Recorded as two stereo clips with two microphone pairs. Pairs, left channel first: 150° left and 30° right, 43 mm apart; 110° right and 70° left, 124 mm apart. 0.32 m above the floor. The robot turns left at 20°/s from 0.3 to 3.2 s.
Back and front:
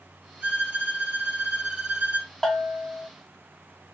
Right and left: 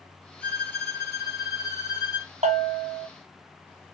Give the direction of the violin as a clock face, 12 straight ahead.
1 o'clock.